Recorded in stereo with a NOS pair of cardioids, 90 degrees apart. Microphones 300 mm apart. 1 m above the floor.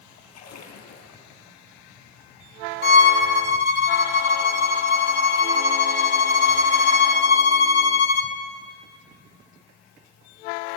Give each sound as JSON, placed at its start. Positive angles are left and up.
{"t": 0.3, "sound": "a splash", "azimuth_deg": 60, "distance_m": 5.0}
{"t": 2.8, "sound": "a violin", "azimuth_deg": 55, "distance_m": 2.5}